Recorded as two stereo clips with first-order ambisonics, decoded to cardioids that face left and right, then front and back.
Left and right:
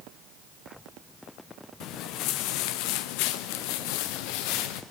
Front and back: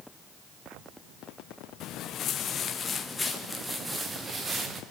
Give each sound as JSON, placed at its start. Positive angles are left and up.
{"t": 1.8, "sound": "footsteps", "azimuth_deg": 50, "distance_m": 2.5}